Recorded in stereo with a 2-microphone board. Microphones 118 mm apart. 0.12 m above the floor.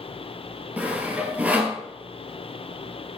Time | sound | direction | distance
0.8 | sawing | 15° right (ahead or behind) | 1.3 m